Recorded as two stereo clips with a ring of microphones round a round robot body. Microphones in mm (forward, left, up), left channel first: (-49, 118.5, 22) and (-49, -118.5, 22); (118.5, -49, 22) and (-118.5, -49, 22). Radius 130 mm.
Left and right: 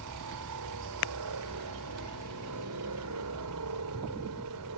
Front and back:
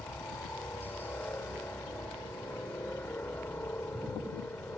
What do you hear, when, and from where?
0.0 s a helicopter: 80° right